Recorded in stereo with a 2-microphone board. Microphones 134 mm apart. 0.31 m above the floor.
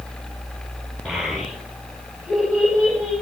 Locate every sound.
1.1 s a child speaking: 5° left (ahead or behind), 10 m; by 3.1 s centre (ahead or behind), 11 m